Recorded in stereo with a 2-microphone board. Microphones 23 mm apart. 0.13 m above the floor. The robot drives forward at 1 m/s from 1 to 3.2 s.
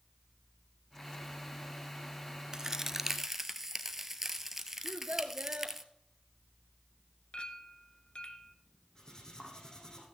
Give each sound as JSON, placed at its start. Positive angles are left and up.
{"t": 2.5, "sound": "a crack", "side_deg": -30, "distance_m": 0.5}
{"t": 4.8, "sound": "a child speaking", "side_deg": -55, "distance_m": 1.4}
{"t": 7.3, "sound": "a clink", "side_deg": 50, "distance_m": 1.1}
{"t": 8.9, "sound": "cutlery clinking", "side_deg": 30, "distance_m": 4.0}